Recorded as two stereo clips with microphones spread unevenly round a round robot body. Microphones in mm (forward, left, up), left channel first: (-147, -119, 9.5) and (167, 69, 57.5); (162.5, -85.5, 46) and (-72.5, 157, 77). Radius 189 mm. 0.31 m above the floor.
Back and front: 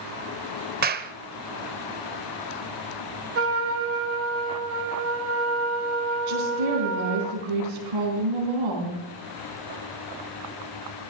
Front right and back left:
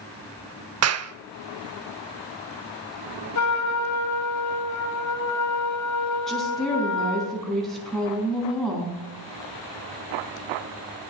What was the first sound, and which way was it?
A clap, 95° left.